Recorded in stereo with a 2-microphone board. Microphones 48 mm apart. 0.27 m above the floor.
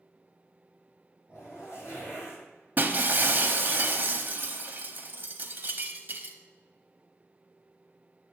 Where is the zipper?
65° left (ahead or behind), 3 m.